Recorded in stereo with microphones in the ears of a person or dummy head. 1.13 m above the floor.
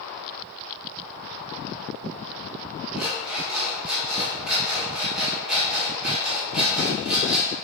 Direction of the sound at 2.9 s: Centre (ahead or behind).